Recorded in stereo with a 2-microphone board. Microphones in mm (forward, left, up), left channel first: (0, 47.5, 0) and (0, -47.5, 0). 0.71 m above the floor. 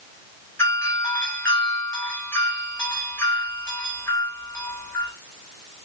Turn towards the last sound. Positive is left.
turn(degrees=30)  # may be behind; listen again after turning